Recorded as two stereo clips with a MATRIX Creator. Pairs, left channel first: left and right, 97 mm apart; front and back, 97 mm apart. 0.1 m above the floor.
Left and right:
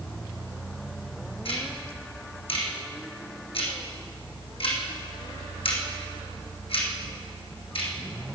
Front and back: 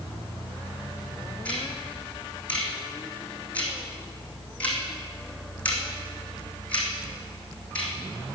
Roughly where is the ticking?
Left.